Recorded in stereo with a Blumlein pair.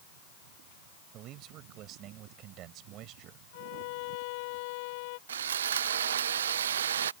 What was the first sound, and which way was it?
A man speaking, 35° right.